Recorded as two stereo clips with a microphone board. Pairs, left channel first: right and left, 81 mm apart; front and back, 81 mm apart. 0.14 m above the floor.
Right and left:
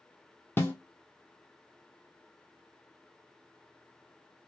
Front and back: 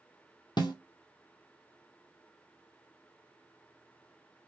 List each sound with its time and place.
0.6 s a snare drum: 25° right, 0.8 m